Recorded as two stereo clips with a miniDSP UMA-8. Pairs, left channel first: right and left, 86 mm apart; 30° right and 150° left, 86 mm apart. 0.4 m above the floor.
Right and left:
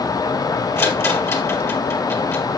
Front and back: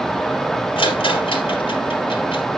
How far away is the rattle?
About 3.5 m.